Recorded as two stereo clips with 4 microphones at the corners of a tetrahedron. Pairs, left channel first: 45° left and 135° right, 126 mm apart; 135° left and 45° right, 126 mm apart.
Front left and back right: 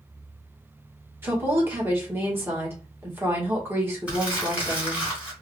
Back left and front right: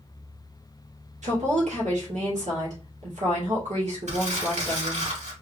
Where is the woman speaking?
65° right, 2 m.